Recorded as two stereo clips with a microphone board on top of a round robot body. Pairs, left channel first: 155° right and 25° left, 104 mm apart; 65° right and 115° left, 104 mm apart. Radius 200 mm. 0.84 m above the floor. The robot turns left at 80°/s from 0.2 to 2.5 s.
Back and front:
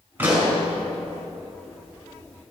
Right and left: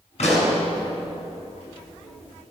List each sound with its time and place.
0.2 s a pop: 45° right, 4.5 m; by 0.6 s 75° right, 4.5 m